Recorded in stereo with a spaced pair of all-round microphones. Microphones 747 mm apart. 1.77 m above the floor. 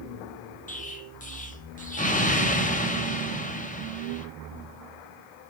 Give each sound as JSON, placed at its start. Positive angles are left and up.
{"t": 0.7, "sound": "an explosion", "side_deg": 10, "distance_m": 0.9}